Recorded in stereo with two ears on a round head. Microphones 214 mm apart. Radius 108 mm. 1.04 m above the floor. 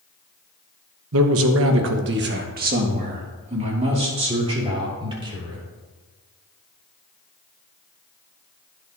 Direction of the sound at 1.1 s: 60° right (ahead or behind).